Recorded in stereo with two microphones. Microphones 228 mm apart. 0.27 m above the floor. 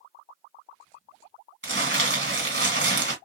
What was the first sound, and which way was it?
Crumpling, 55° right (ahead or behind).